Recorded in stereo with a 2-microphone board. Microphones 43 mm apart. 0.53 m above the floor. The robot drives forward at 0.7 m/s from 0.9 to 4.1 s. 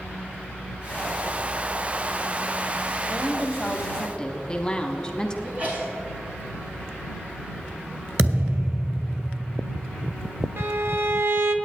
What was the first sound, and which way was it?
A woman speaking, 15° left (ahead or behind).